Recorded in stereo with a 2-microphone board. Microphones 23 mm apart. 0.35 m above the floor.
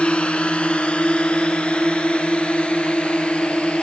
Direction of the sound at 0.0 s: 50° left (ahead or behind).